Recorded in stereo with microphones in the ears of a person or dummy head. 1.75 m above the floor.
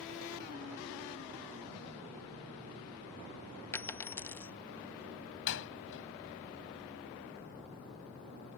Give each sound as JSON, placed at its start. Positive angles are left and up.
{"t": 3.7, "sound": "a dropped coin", "side_deg": 10}
{"t": 5.5, "sound": "a door slam", "side_deg": 70}